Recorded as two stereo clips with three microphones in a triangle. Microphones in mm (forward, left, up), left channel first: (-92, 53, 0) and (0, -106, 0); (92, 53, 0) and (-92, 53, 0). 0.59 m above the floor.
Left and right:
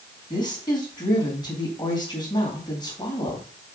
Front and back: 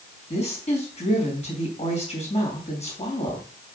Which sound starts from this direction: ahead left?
A woman speaking, at 0.3 s.